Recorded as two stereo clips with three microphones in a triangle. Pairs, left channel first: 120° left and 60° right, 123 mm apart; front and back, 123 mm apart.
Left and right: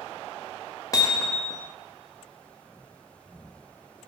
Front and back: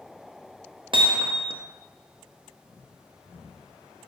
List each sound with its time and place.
0.9 s hammering: 165° left, 1.1 m